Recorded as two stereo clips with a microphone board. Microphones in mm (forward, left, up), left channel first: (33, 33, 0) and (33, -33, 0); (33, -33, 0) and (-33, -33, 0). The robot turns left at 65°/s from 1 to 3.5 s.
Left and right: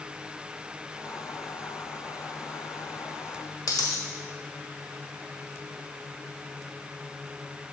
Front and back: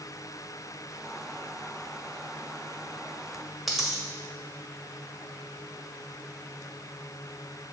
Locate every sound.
3.7 s a dropped coin: 90° left, 1.4 m